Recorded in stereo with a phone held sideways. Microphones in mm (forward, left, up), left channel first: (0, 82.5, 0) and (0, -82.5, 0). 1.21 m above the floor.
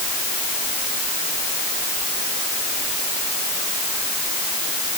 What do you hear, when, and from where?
Only background noise.